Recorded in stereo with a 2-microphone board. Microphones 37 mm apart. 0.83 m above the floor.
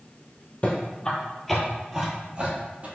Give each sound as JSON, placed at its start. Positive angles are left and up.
{"t": 0.6, "sound": "footsteps", "side_deg": 35, "distance_m": 1.1}